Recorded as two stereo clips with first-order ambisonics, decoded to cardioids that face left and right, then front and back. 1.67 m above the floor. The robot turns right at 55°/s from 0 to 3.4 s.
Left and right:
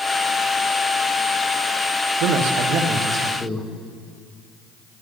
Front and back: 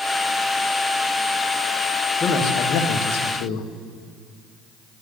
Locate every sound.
2.2 s a man speaking: 70° right, 1.5 m; by 3.7 s straight ahead, 1.5 m